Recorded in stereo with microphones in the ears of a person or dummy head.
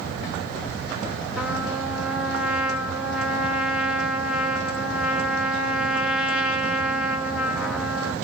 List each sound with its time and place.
1.4 s a trumpet: centre (ahead or behind), 1.4 m